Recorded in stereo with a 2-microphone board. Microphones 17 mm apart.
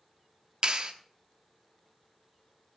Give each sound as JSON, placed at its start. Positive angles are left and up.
{"t": 0.6, "sound": "a clap", "side_deg": -60, "distance_m": 1.1}